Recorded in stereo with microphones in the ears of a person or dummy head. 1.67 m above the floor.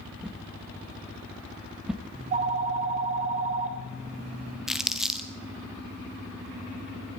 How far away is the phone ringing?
About 1.4 m.